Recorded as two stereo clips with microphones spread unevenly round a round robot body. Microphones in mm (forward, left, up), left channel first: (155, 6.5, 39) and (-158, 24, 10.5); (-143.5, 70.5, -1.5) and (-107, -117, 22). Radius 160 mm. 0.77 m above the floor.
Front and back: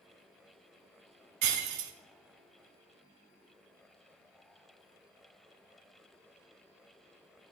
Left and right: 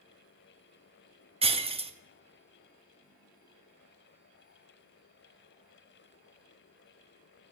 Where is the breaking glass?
145° right, 0.7 m.